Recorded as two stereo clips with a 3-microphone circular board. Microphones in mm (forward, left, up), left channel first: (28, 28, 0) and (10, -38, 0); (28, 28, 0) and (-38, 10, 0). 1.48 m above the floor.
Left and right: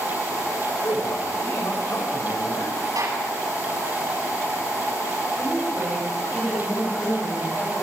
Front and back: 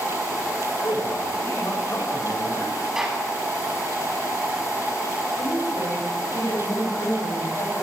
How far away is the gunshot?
About 9.5 m.